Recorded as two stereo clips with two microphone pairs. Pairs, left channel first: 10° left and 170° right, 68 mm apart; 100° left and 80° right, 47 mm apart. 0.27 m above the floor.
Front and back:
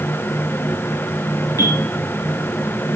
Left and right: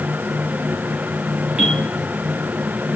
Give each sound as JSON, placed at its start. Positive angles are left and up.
{"t": 1.6, "sound": "a bell", "azimuth_deg": -15, "distance_m": 4.0}